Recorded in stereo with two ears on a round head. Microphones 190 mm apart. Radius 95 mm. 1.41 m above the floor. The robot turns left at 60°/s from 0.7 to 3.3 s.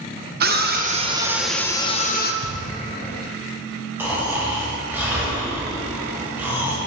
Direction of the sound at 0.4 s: 135° right.